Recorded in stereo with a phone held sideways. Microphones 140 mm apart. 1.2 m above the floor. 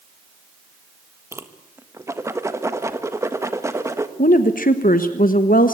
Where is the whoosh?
20° right (ahead or behind), 1.4 m.